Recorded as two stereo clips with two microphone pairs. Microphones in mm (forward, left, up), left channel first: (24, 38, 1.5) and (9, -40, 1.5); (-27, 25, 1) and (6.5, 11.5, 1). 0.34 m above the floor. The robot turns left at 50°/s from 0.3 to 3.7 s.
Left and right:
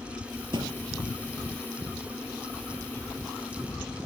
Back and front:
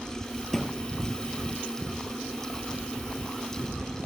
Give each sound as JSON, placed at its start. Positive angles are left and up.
{"t": 0.5, "sound": "a thud", "azimuth_deg": -120}